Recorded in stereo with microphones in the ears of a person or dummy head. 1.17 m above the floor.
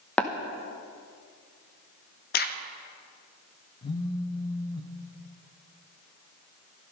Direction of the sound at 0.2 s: 5° left (ahead or behind).